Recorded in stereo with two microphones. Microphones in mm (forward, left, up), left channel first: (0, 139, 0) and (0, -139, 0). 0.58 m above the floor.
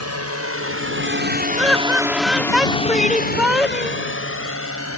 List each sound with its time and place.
0.0 s a drone: 65° right (ahead or behind); by 5.0 s 55° left (ahead or behind)
1.6 s laughter: centre (ahead or behind)